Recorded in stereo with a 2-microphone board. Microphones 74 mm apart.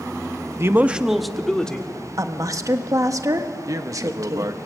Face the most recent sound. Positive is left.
turn(degrees=-50)  # may be behind; listen again after turning